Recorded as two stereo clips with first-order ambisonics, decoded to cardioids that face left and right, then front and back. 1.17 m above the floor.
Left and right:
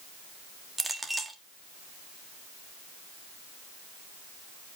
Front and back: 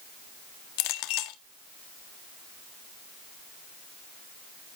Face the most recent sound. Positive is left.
turn(degrees=-5)